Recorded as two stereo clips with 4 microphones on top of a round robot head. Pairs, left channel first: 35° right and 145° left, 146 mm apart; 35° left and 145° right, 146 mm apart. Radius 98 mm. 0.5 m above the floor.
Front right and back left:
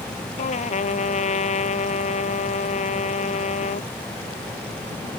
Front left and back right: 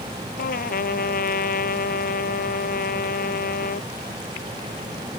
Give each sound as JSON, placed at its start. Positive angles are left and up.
{"t": 0.4, "sound": "a trumpet", "azimuth_deg": 10}